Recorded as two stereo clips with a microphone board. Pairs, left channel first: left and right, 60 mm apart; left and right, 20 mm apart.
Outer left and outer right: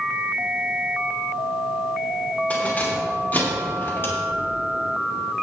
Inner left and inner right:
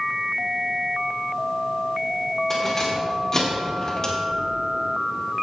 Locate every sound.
2.5 s keys jangling: 25° left (ahead or behind), 3.5 m; by 4.2 s 45° left (ahead or behind), 1.6 m
4.3 s a splash: 45° left (ahead or behind), 2.5 m